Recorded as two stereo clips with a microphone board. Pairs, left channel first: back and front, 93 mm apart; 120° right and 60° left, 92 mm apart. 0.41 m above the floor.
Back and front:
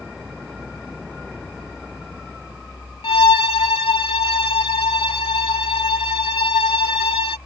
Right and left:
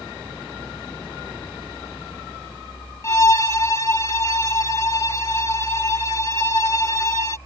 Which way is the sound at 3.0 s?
175° right.